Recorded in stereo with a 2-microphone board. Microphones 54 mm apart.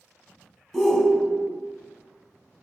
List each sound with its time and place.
0.7 s a shout: 5° left (ahead or behind), 1.1 m